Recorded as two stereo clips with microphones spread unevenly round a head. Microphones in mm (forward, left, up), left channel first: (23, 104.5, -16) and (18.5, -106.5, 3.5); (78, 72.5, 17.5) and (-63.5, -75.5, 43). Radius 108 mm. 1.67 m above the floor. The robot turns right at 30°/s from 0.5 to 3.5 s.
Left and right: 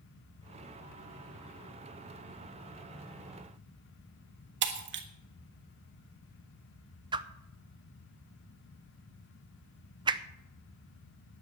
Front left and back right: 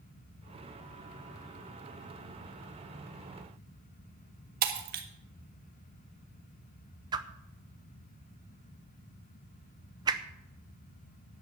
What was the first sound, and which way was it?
Breaking glass, 100° right.